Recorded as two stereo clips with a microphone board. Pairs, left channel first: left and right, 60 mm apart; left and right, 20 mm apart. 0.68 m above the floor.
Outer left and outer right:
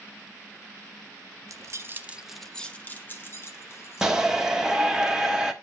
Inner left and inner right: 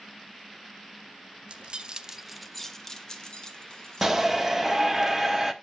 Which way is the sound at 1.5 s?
60° right (ahead or behind).